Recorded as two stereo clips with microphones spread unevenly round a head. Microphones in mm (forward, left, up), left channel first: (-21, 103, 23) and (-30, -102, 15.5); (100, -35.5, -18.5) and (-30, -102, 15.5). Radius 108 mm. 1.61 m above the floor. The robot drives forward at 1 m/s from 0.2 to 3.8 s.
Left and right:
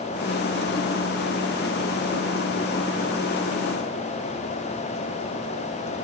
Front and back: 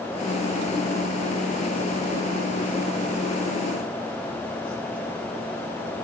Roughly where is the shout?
No shout in this recording.